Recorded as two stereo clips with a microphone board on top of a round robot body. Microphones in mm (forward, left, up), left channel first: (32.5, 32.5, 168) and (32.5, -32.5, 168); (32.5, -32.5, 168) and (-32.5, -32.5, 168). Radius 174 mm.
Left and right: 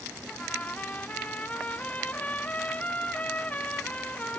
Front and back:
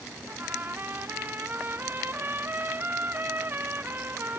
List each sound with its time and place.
0.3 s a trumpet: 145° left, 0.7 m